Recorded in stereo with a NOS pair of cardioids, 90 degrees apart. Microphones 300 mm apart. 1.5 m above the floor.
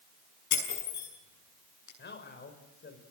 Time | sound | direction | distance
0.5 | breaking glass | 65° left | 8.5 m
2.0 | a man speaking | 35° left | 5 m